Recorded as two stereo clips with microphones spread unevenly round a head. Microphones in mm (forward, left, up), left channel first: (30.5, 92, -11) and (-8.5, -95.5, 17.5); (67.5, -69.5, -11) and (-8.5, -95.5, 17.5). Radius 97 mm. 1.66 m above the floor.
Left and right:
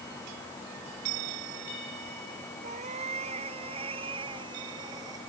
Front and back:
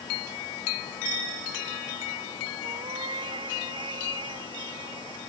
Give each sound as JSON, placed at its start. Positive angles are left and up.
{"t": 2.6, "sound": "a cat meowing", "azimuth_deg": -160}